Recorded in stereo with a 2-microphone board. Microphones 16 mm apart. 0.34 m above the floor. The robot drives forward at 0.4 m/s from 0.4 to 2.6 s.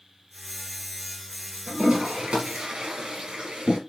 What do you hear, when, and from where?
1.7 s a toilet flushing: 80° right, 5 m